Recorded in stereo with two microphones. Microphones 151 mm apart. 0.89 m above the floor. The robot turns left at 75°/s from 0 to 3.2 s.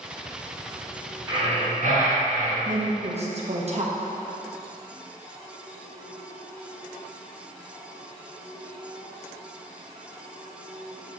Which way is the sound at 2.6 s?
75° right.